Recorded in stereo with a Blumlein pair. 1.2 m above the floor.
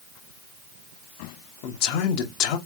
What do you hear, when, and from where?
1.6 s a man speaking: 45° left, 0.9 m